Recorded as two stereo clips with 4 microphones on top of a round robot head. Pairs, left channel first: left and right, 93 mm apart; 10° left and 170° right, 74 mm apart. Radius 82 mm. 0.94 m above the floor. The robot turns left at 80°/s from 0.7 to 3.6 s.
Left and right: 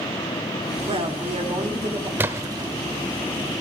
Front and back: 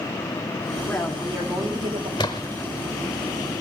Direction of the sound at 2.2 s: 30° right.